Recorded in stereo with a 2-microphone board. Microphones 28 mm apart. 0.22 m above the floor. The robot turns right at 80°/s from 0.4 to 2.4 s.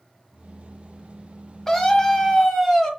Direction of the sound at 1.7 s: 15° left (ahead or behind).